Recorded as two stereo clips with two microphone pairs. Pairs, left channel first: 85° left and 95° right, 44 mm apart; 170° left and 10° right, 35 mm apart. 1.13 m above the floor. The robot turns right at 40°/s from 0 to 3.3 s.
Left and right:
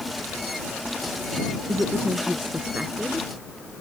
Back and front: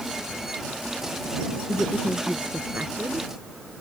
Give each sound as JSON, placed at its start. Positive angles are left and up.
{"t": 1.7, "sound": "a woman speaking", "azimuth_deg": -85}